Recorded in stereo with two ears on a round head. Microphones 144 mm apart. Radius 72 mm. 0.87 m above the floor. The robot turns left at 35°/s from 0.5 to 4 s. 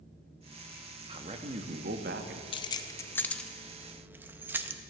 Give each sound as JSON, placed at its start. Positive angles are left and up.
{"t": 1.1, "sound": "a man speaking", "azimuth_deg": -30, "distance_m": 1.0}
{"t": 2.5, "sound": "keys jangling", "side_deg": 30, "distance_m": 0.5}